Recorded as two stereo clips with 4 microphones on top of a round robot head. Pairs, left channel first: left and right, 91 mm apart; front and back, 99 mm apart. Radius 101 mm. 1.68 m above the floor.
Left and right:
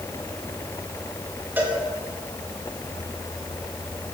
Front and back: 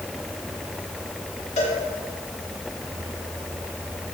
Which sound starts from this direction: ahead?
A cowbell, at 1.6 s.